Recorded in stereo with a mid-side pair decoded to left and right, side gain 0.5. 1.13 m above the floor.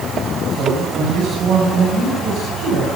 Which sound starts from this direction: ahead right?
A man speaking, at 0.5 s.